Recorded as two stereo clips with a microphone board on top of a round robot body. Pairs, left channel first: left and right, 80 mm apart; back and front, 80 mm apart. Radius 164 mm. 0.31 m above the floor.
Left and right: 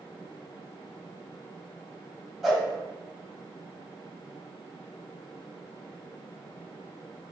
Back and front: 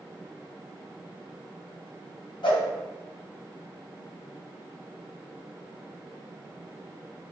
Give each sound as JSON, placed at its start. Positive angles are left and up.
{"t": 2.4, "sound": "a whoosh", "azimuth_deg": 180, "distance_m": 1.4}